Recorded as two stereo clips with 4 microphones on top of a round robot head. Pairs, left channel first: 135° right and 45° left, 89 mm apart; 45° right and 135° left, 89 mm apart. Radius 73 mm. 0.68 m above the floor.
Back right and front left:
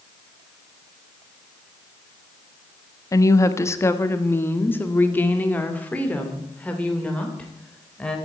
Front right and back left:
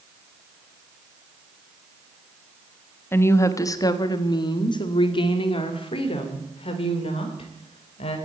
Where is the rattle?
No rattle in this recording.